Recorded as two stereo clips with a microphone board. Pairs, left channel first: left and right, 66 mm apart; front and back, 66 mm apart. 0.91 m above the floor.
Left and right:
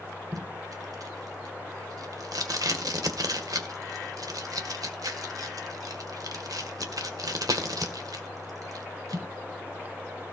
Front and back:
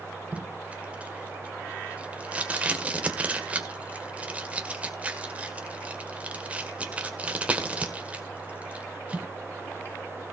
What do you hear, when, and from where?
0.3 s tape being pulled: 110° right, 1.8 m